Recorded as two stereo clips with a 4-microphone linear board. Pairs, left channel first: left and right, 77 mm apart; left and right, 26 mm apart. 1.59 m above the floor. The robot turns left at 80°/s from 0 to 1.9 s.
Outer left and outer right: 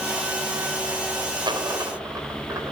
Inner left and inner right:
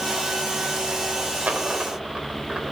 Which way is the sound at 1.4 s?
75° right (ahead or behind).